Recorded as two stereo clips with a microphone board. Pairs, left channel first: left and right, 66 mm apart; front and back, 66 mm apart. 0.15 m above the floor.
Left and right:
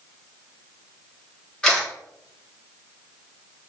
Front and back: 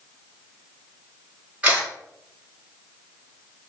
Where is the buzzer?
No buzzer in this recording.